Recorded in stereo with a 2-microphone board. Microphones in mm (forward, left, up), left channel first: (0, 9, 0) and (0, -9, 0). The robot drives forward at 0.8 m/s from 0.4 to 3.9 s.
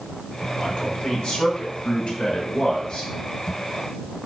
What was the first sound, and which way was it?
A man speaking, 65° left (ahead or behind).